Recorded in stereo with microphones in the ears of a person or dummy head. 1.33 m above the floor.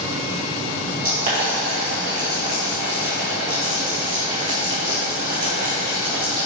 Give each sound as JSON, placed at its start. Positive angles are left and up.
{"t": 1.0, "sound": "boiling", "side_deg": -40, "distance_m": 1.9}